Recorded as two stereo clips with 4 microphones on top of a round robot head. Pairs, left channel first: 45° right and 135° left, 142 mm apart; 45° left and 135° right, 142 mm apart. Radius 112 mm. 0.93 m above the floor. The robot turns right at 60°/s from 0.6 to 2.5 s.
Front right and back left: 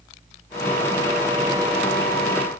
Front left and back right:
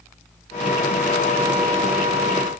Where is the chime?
I don't hear a chime.